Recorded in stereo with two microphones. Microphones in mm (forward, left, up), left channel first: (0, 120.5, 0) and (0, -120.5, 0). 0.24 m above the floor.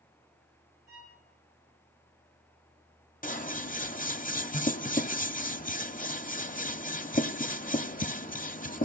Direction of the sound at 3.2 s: 35° left (ahead or behind).